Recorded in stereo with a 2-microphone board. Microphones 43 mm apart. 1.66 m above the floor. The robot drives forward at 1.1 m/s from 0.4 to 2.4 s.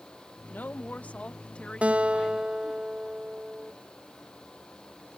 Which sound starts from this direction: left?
A woman speaking, at 0.5 s.